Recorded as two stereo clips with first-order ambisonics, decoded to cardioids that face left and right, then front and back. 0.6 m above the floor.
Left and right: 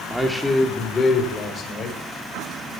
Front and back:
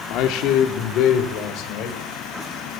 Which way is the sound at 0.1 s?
5° right.